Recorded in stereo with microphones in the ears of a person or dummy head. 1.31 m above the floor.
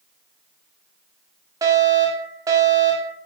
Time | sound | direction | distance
1.6 | a fire alarm | 20° right (ahead or behind) | 1.6 m